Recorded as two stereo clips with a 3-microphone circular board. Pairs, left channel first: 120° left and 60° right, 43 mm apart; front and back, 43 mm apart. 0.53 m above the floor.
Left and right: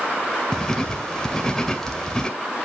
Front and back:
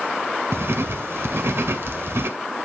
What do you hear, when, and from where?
0.5 s writing: 165° right, 2 m